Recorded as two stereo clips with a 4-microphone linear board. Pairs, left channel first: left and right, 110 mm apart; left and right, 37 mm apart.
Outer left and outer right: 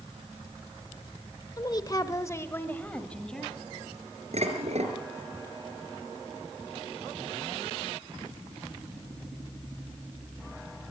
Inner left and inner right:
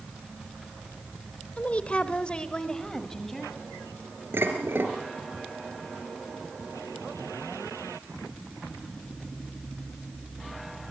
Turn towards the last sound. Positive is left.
turn(degrees=-80)